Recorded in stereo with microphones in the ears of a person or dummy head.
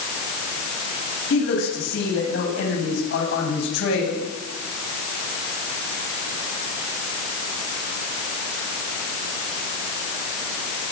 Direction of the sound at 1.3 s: 65° left (ahead or behind).